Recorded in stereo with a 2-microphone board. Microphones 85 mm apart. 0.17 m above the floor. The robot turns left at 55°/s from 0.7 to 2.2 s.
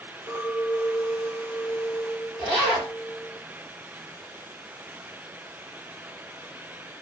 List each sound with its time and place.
0.3 s a clink: 110° left, 2.5 m; by 3.4 s 25° left, 2.5 m
2.4 s a zipper: 20° left (ahead or behind), 3.5 m